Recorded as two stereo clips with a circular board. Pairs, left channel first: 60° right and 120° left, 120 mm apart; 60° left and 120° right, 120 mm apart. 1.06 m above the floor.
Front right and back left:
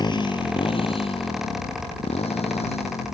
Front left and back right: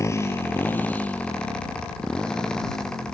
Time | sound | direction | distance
0.0 | a motorcycle | 5° right | ?